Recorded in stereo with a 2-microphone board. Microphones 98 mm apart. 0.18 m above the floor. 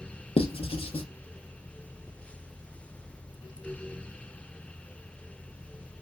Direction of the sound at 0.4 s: 80° left.